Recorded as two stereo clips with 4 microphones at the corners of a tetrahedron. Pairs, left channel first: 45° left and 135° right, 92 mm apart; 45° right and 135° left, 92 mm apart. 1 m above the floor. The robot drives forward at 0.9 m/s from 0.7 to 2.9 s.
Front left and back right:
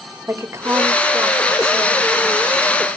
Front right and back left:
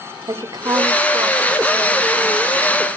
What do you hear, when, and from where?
0.3 s a woman speaking: 170° left, 1.7 m; by 2.9 s 175° left, 3.5 m